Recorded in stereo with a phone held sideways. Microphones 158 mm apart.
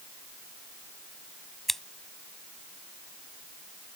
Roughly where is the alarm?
No alarm in this recording.